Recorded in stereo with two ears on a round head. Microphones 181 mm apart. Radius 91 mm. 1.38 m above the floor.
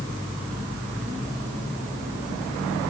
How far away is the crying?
I don't hear crying.